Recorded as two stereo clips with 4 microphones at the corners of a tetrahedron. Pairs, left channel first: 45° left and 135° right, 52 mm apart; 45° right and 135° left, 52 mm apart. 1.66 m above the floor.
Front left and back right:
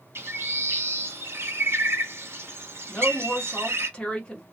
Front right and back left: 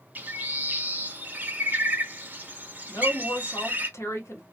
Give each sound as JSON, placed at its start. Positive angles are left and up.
{"t": 0.1, "sound": "a bird", "azimuth_deg": -170, "distance_m": 0.6}
{"t": 2.9, "sound": "a woman speaking", "azimuth_deg": -25, "distance_m": 0.9}